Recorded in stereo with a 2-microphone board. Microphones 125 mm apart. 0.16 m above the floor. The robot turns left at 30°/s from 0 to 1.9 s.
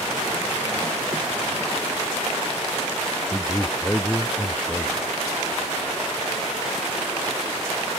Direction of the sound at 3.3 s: 10° left (ahead or behind).